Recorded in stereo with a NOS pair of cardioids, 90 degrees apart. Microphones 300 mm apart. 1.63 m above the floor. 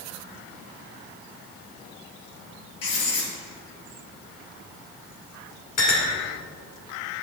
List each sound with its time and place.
2.8 s writing: 50° left, 3 m
5.8 s a clink: 70° left, 2.5 m